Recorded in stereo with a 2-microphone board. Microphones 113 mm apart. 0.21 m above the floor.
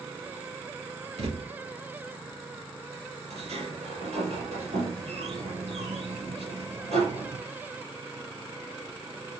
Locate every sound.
1.2 s a thud: 80° right, 3.5 m
3.3 s a sliding door: 75° right (ahead or behind), 5 m